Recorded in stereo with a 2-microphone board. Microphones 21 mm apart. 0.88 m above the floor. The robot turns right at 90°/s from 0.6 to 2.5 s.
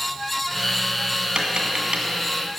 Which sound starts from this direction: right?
Tapping, at 1.4 s.